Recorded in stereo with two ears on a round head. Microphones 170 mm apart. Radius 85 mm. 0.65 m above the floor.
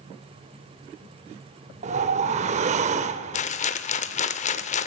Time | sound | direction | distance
1.8 | a whoosh | 35° right (ahead or behind) | 0.6 m
3.3 | a rattle | 40° left (ahead or behind) | 0.6 m